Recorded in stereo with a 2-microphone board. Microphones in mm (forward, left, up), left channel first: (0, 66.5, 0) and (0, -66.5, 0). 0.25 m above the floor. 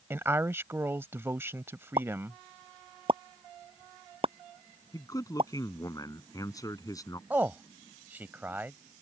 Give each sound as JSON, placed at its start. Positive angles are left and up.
{"t": 0.1, "sound": "a woman speaking", "side_deg": -20}
{"t": 2.0, "sound": "a pop", "side_deg": -45}
{"t": 4.9, "sound": "a man speaking", "side_deg": 25}
{"t": 7.3, "sound": "a man speaking", "side_deg": -15}